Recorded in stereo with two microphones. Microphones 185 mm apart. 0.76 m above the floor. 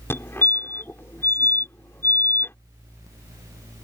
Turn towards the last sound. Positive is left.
turn(degrees=10)  # may be behind; listen again after turning